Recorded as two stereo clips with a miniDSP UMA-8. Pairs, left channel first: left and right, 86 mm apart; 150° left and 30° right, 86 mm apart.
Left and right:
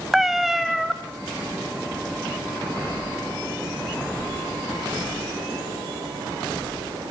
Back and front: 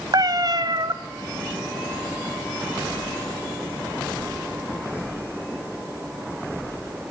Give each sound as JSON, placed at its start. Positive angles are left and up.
{"t": 0.1, "sound": "a cat meowing", "azimuth_deg": -5, "distance_m": 0.9}